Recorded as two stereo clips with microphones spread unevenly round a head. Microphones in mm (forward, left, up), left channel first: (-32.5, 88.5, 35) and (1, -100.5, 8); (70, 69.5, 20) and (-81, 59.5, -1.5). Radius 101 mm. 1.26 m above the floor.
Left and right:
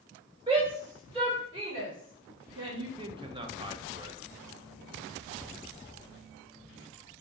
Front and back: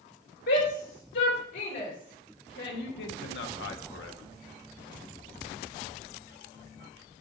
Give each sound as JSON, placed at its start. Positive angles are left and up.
{"t": 0.5, "sound": "a shout", "azimuth_deg": -15, "distance_m": 3.0}
{"t": 3.0, "sound": "a man speaking", "azimuth_deg": -15, "distance_m": 0.9}